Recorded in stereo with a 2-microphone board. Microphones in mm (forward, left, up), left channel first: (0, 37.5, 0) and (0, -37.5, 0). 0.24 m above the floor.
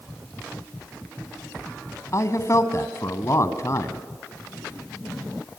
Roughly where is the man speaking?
Left.